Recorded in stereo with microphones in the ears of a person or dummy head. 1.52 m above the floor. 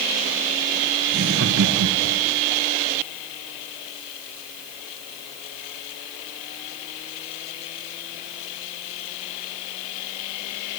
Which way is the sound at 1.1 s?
65° right (ahead or behind).